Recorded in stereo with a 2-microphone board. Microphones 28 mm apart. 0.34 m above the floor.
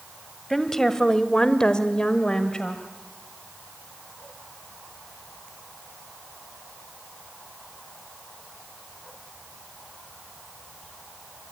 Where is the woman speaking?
15° left (ahead or behind), 1.8 m; by 2.8 s 25° left (ahead or behind), 1.8 m.